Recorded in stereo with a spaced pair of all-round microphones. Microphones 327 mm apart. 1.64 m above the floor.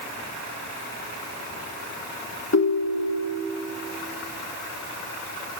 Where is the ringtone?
50° left (ahead or behind), 1.3 m.